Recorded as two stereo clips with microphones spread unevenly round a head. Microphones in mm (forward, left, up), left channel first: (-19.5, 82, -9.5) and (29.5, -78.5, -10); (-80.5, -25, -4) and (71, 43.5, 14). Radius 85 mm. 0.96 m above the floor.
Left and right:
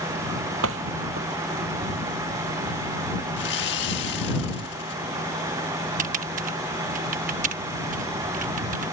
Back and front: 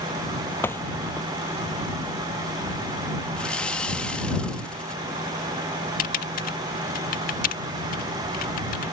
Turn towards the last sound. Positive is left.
turn(degrees=-120)